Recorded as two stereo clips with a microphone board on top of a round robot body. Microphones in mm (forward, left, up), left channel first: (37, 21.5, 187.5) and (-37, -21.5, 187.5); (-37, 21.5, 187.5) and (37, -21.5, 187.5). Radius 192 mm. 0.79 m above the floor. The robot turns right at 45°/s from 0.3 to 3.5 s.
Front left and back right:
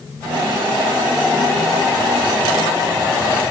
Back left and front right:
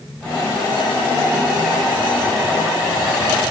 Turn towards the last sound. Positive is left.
No sound to turn to.